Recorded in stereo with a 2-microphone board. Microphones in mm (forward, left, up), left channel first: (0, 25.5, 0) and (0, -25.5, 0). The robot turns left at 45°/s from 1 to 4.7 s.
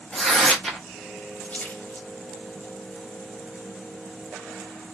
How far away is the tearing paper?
About 1.2 m.